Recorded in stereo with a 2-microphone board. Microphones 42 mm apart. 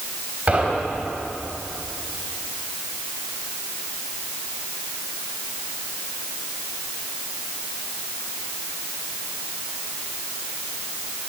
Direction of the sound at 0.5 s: 40° right (ahead or behind).